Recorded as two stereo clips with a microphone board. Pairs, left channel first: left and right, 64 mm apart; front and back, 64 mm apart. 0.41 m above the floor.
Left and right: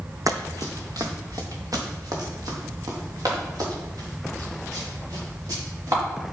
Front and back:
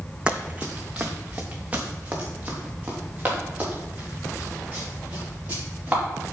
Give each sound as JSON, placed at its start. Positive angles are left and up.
{"t": 0.3, "sound": "running footsteps", "azimuth_deg": -105, "distance_m": 1.0}